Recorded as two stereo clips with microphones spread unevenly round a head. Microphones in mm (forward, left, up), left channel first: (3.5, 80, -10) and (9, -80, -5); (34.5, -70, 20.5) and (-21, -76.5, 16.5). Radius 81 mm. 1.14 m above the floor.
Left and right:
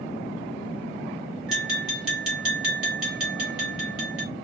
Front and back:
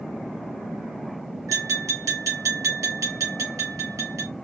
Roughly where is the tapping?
Behind.